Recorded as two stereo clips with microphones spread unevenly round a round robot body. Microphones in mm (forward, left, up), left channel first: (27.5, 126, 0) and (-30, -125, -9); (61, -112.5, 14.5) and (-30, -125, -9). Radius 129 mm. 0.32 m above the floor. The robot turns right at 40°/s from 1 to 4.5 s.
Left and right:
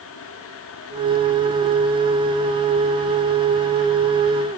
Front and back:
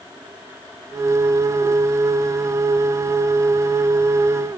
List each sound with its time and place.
Only background noise.